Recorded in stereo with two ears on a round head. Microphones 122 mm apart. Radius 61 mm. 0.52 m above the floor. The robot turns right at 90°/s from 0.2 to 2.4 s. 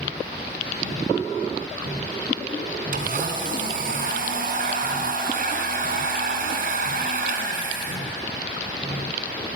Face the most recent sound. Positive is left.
turn(degrees=-70)  # may be behind; listen again after turning